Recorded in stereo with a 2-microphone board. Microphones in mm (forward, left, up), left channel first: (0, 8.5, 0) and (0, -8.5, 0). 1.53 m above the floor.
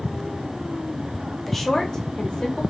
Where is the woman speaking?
10° left (ahead or behind), 0.8 m; by 2.6 s 65° left (ahead or behind), 1.1 m.